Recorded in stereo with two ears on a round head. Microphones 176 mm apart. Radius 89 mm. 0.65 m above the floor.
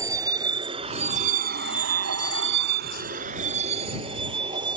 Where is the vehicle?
20° right (ahead or behind); by 4.8 s 25° right (ahead or behind).